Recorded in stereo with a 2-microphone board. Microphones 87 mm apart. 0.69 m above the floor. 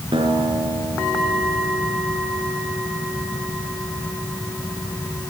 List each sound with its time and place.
0.1 s a guitar: 90° right, 4.5 m